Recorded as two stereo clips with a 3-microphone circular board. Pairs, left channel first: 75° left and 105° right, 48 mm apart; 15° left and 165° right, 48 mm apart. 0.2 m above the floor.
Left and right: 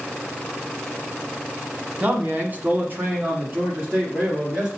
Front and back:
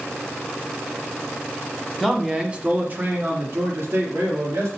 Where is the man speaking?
75° right, 1.2 m; by 4.7 s 160° right, 3 m.